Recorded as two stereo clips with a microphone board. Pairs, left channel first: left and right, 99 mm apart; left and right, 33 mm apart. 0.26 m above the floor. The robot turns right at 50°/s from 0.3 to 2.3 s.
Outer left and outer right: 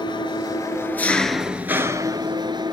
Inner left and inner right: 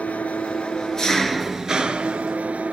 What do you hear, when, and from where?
0.0 s an engine running: 125° left, 1.4 m; by 2.7 s 135° right, 1.4 m